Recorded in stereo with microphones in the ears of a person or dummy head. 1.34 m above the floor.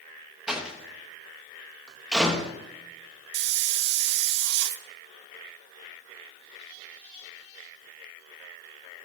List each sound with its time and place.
0.5 s a door slam: 5° right (ahead or behind), 1.0 m
3.3 s a hiss: 70° right (ahead or behind), 0.5 m